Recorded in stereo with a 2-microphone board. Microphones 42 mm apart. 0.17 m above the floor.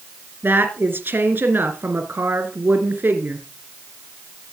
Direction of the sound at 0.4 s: 55° right (ahead or behind).